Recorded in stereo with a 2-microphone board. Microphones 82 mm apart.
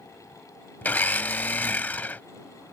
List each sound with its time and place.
0.8 s a blender: 20° left (ahead or behind)